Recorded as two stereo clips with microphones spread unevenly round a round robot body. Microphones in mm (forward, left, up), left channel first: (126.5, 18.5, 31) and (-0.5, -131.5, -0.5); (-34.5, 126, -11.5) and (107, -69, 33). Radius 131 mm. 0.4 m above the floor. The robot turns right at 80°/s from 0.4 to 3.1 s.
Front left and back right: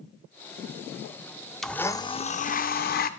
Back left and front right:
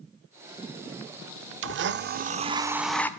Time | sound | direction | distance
1.6 | a blender | 50° right | 0.6 m